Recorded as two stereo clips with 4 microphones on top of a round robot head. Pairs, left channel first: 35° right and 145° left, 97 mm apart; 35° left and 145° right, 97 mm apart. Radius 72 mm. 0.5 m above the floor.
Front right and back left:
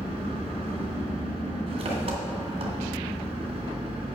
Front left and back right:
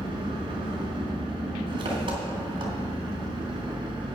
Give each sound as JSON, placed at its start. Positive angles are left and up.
{"t": 0.0, "sound": "an engine running", "azimuth_deg": 175, "distance_m": 2.0}